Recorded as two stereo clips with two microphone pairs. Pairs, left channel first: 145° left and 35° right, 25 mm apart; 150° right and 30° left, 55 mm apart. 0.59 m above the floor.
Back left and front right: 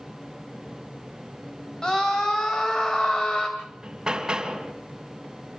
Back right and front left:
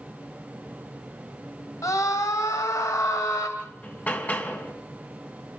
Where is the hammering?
95° right, 3 m.